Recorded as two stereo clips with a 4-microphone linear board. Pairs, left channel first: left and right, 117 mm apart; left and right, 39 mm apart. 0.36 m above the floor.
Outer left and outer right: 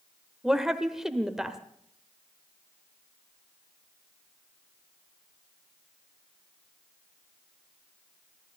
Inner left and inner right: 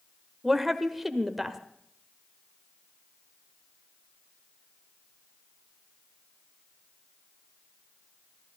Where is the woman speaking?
5° right (ahead or behind), 1.2 m.